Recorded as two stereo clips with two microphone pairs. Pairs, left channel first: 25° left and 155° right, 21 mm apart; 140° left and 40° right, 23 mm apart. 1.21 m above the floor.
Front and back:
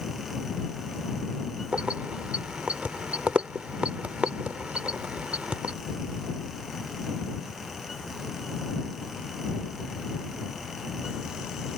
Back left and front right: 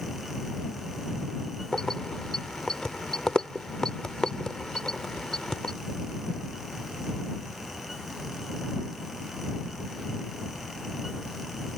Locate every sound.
1.7 s keys jangling: 165° right